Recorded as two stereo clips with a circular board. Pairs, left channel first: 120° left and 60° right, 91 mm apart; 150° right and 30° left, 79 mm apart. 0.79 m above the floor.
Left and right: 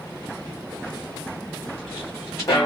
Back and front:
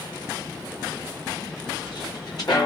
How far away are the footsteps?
About 3.5 m.